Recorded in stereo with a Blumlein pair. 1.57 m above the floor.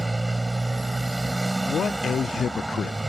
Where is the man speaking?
20° left.